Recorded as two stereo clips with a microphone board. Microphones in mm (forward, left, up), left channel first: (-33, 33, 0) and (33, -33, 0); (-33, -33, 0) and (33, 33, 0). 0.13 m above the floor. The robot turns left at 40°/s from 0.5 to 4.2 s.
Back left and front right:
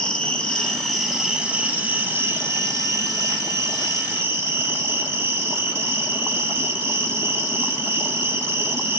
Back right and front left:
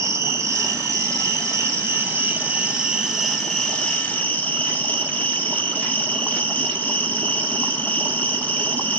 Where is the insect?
65° left, 1.6 m; by 9.0 s 80° right, 1.6 m.